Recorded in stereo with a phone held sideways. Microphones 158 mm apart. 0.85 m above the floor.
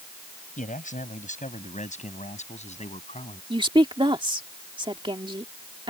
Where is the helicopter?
I don't hear a helicopter.